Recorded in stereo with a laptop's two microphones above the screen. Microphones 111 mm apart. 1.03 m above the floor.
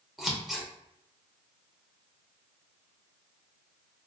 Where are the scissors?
Centre (ahead or behind), 0.6 m.